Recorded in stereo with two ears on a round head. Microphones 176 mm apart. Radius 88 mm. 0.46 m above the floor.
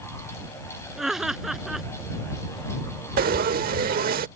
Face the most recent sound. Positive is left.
turn(degrees=-50)  # may be behind; listen again after turning